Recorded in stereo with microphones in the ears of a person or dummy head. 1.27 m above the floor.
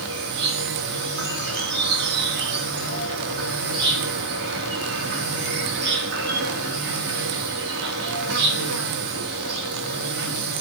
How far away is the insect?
About 3 m.